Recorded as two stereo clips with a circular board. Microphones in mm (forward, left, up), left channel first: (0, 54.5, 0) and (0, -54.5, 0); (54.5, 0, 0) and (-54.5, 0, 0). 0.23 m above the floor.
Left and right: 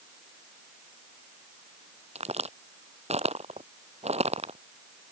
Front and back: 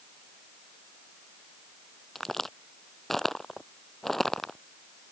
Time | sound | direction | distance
2.1 | a crack | 90° right | ?